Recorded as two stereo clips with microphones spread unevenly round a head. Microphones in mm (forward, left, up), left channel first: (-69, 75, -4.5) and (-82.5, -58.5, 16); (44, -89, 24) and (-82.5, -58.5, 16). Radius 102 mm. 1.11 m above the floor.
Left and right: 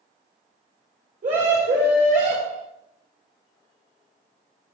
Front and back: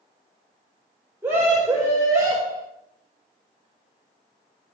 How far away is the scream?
About 5 m.